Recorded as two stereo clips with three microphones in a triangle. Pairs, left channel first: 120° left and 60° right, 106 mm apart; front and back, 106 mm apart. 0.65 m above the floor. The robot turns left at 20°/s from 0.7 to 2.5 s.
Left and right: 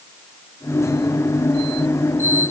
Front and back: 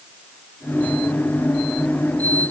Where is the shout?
No shout in this recording.